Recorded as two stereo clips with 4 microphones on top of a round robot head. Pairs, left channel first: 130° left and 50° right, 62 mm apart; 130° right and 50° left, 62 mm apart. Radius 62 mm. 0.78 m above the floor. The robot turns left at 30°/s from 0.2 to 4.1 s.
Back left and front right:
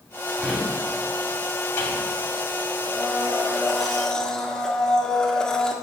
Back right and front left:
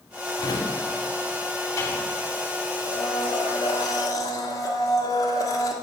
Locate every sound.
0.4 s a drawer: 125° right, 2.5 m; by 2.1 s 175° right, 2.5 m
2.9 s a blender: 115° right, 1.8 m; by 5.7 s 150° right, 1.8 m